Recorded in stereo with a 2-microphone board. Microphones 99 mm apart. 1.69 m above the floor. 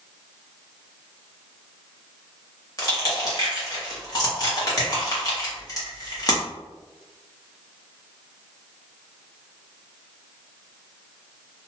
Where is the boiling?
I don't hear boiling.